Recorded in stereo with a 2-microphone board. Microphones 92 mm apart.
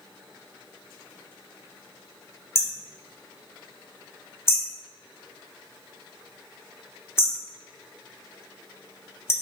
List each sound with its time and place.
2.5 s hammering: 30° left (ahead or behind), 1.0 m